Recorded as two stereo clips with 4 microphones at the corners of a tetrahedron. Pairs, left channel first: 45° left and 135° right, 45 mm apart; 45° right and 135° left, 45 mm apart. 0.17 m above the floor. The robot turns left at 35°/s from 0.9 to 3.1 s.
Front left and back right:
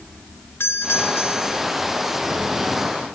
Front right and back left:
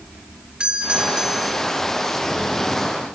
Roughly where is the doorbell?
Ahead left.